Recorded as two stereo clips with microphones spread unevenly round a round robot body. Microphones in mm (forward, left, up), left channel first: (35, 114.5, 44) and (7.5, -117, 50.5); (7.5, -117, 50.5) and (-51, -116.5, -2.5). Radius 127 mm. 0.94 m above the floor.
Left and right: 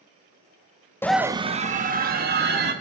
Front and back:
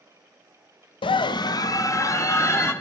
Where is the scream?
5° left, 0.6 m; by 2.7 s 50° right, 2 m.